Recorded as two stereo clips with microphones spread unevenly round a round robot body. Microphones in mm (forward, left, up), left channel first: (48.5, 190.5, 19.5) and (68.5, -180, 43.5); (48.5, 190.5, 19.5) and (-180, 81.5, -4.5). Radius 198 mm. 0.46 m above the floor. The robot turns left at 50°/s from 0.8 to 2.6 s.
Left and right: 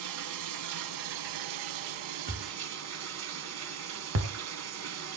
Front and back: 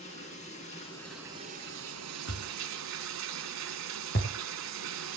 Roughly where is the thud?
Ahead.